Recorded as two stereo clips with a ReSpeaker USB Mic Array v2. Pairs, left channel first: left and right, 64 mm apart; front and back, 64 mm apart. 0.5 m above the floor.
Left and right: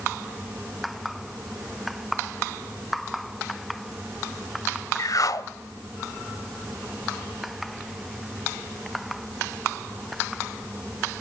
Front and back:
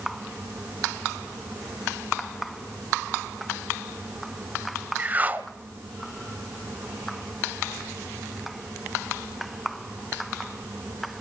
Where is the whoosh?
115° left, 0.9 m.